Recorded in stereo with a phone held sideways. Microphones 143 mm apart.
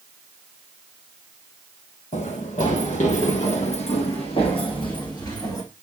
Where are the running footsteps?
65° left (ahead or behind), 2.5 m; by 5.6 s 30° left (ahead or behind), 3 m.